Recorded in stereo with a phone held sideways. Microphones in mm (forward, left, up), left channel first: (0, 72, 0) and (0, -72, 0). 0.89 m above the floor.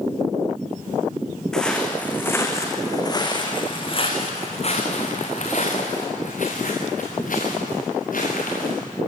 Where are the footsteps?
5° left (ahead or behind), 4.5 m; by 8.8 s 75° left (ahead or behind), 9 m.